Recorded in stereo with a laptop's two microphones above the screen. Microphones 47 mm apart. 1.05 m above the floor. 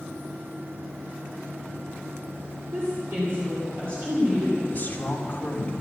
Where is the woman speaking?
45° right (ahead or behind), 3 m.